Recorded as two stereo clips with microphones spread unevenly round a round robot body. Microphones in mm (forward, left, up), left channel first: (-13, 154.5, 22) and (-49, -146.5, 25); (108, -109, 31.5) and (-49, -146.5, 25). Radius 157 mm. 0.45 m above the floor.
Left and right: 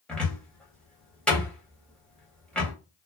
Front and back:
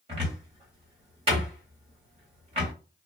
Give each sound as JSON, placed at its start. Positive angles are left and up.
{"t": 0.1, "sound": "a cupboard door", "azimuth_deg": 170, "distance_m": 1.4}